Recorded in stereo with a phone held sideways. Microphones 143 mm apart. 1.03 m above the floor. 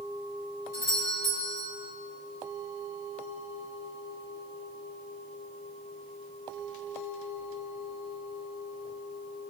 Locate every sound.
0.7 s a doorbell: 25° left (ahead or behind), 6.5 m